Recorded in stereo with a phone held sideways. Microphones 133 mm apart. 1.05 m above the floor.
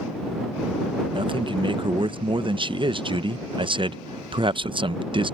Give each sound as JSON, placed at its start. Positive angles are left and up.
{"t": 1.1, "sound": "a man speaking", "side_deg": -40}